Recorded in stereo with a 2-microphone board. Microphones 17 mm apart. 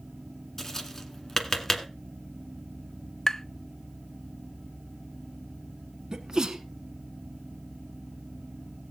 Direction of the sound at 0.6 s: 20° left (ahead or behind).